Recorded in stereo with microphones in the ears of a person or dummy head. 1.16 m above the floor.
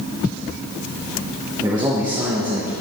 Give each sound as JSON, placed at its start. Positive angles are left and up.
{"t": 1.6, "sound": "a man speaking", "side_deg": -20, "distance_m": 1.1}